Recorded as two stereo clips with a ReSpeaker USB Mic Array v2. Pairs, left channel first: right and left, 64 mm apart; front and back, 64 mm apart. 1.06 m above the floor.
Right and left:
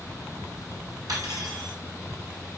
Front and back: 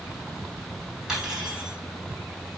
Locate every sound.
1.1 s cutlery clinking: 100° left, 5 m